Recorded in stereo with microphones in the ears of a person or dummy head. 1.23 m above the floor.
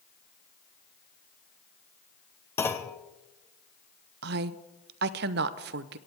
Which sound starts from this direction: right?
A woman speaking, at 4.2 s.